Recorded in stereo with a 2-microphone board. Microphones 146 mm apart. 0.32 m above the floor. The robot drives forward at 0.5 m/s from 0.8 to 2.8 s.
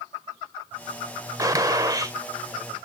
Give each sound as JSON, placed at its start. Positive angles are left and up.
{"t": 1.4, "sound": "a gunshot", "side_deg": -25, "distance_m": 0.8}